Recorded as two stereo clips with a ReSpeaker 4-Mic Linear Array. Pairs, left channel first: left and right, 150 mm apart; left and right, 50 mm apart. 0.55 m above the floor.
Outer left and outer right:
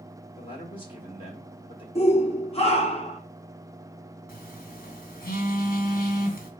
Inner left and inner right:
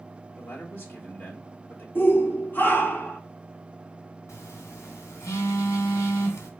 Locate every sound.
0.4 s a man speaking: 35° left (ahead or behind), 1.3 m
1.9 s a shout: 40° left (ahead or behind), 0.9 m
4.3 s a phone buzzing: 80° left, 1.1 m